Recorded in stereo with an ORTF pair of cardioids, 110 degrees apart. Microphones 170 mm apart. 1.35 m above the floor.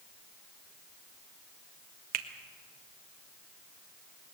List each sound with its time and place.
2.1 s a finger snap: 65° right, 1.4 m